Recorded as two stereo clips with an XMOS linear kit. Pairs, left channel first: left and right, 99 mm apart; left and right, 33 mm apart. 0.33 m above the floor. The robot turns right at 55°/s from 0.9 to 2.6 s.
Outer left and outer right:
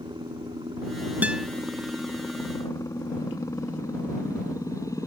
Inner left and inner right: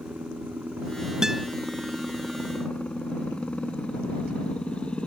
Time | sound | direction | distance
0.0 | a helicopter | 55° right | ?
1.2 | a guitar | 15° right (ahead or behind) | ?